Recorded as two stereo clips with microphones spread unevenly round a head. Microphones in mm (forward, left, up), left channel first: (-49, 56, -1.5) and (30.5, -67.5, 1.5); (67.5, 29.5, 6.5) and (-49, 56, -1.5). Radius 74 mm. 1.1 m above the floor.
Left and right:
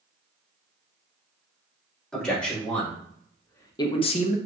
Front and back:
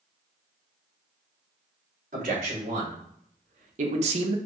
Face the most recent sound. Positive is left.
turn(degrees=135)